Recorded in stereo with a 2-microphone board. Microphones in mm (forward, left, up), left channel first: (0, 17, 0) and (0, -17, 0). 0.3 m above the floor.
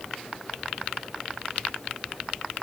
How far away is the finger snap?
I don't hear a finger snap.